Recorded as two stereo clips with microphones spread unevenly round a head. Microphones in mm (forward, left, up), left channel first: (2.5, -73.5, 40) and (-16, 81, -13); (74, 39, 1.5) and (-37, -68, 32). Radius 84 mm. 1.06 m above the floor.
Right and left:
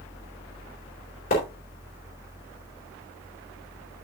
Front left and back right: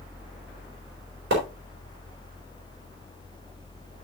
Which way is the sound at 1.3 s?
120° right.